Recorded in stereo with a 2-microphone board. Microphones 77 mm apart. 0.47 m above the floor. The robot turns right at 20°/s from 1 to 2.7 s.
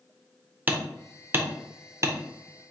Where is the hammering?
25° right (ahead or behind), 0.5 m; by 2.2 s 40° right (ahead or behind), 0.5 m.